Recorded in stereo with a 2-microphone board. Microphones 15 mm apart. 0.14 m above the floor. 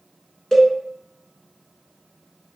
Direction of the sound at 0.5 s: 30° left (ahead or behind).